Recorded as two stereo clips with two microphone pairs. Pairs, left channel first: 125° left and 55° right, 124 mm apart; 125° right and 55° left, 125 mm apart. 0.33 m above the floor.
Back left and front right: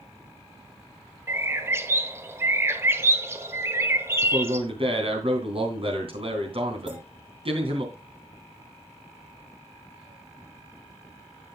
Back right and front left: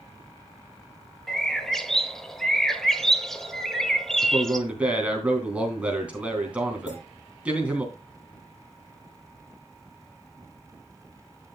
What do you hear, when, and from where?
1.3 s a bird: 45° right, 1.1 m
4.2 s a man speaking: 25° right, 3 m
6.9 s a clink: 135° right, 7 m